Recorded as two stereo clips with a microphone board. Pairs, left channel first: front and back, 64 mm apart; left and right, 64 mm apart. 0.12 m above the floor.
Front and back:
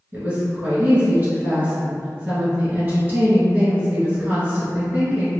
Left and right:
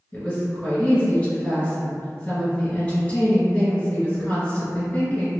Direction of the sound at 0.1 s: 140° left.